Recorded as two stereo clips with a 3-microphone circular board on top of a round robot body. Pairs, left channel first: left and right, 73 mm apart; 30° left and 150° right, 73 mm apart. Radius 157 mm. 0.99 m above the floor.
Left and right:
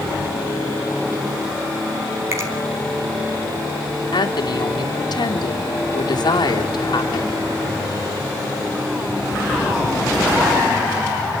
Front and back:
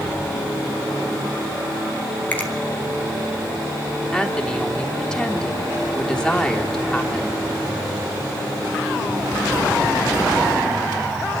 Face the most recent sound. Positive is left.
turn(degrees=110)